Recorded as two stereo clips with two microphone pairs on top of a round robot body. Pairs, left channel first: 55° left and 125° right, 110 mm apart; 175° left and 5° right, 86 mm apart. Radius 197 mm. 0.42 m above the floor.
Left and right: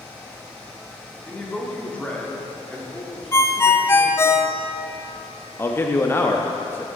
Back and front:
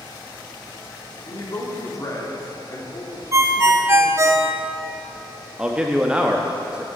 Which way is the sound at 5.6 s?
45° left.